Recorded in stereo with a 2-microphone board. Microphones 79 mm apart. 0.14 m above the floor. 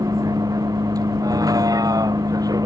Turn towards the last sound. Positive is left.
turn(degrees=-50)  # may be behind; listen again after turning